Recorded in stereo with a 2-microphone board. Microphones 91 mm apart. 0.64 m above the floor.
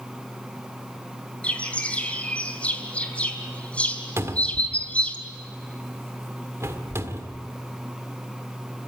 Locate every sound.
1.4 s a bird: 15° left (ahead or behind), 2.5 m
4.2 s a cupboard door: 30° right (ahead or behind), 1.8 m